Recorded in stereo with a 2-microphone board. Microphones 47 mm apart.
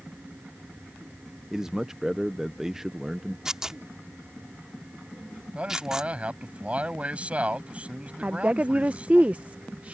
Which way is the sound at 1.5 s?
10° right (ahead or behind).